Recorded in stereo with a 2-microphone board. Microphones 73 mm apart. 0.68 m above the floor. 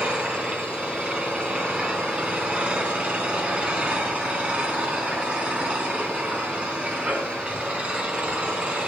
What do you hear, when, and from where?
0.0 s an engine running: 15° right (ahead or behind), 3 m